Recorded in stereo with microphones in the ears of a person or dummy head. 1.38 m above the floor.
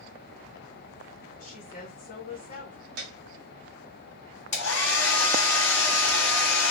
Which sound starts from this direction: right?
A piano, at 3.0 s.